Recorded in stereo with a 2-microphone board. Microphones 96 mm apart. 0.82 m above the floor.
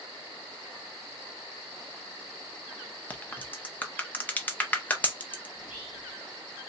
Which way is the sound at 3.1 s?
15° left (ahead or behind).